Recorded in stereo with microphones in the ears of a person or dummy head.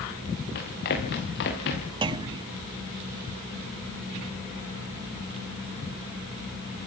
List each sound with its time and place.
0.6 s running footsteps: 55° left (ahead or behind), 8.5 m; by 1.9 s 65° left (ahead or behind), 8.5 m
2.0 s a clunk: 25° right (ahead or behind), 1.2 m